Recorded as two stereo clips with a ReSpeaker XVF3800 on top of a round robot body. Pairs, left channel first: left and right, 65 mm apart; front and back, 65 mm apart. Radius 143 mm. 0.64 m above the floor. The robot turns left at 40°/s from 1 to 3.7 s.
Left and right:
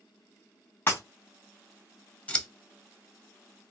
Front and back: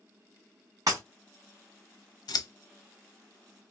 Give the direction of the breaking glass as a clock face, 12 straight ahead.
7 o'clock.